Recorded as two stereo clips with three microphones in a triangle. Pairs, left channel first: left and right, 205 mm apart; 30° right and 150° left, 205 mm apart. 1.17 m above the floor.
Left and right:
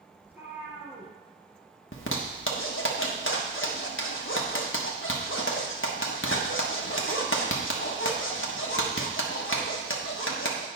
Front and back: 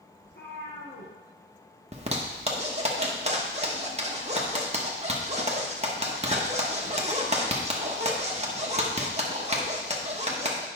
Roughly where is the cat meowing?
Ahead.